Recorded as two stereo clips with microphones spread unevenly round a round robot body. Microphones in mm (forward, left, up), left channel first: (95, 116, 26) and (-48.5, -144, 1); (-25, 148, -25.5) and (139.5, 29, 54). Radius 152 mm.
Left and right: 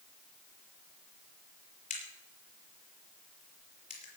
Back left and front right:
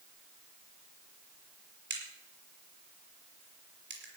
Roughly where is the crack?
Ahead.